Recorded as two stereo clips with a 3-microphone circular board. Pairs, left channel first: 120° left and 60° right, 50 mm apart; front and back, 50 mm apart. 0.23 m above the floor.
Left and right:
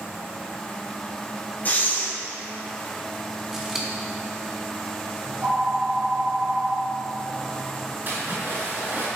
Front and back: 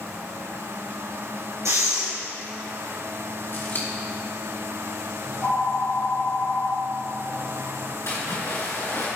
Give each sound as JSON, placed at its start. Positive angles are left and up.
{"t": 1.6, "sound": "breathing", "azimuth_deg": 175, "distance_m": 3.0}
{"t": 3.5, "sound": "scissors", "azimuth_deg": 20, "distance_m": 2.0}
{"t": 5.2, "sound": "a phone ringing", "azimuth_deg": -15, "distance_m": 1.8}
{"t": 8.1, "sound": "a splash", "azimuth_deg": -15, "distance_m": 3.5}